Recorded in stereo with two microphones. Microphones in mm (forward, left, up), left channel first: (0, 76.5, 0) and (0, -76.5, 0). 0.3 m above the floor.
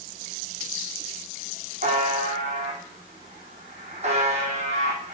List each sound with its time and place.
1.8 s a buzzer: 45° right (ahead or behind), 4 m